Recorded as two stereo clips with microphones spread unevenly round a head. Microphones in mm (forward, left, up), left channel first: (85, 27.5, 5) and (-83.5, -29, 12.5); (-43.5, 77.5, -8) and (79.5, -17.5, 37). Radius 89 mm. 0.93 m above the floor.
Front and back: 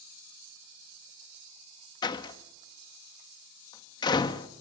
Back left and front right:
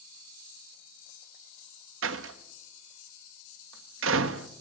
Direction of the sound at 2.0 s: 50° right.